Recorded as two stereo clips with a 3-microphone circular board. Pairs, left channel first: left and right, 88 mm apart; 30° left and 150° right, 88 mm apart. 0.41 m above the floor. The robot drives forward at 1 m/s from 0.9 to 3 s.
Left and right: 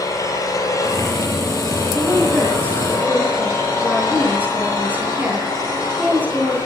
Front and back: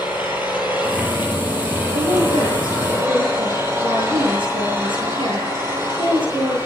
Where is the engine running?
140° left, 9 m; by 6.7 s 150° left, 10.5 m.